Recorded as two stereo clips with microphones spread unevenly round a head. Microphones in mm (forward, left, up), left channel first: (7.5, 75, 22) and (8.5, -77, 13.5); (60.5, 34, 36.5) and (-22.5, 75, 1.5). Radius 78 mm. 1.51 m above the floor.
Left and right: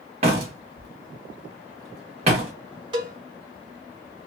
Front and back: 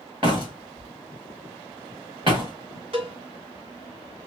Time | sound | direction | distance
0.2 | a door slam | 140° right | 1.3 m
2.9 | a cowbell | 145° right | 1.1 m